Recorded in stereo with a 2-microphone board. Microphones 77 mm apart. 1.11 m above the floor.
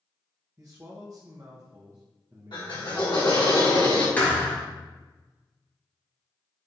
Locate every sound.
0.6 s a man speaking: 40° right (ahead or behind), 0.6 m
2.5 s a drill: 70° left (ahead or behind), 1.6 m
4.2 s a thud: 20° left (ahead or behind), 1.3 m